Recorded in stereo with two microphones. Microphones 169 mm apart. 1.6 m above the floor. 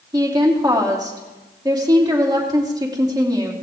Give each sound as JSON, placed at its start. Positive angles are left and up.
{"t": 0.1, "sound": "a woman speaking", "side_deg": -20, "distance_m": 3.0}